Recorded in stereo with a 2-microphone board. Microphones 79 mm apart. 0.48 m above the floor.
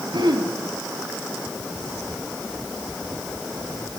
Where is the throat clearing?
75° right (ahead or behind), 2.5 m.